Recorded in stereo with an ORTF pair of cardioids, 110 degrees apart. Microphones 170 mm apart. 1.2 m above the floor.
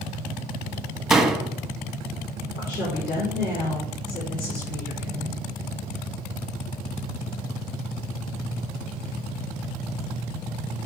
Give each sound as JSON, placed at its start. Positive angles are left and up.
{"t": 1.1, "sound": "a door slam", "azimuth_deg": 0, "distance_m": 0.9}
{"t": 2.5, "sound": "a woman speaking", "azimuth_deg": 70, "distance_m": 4.0}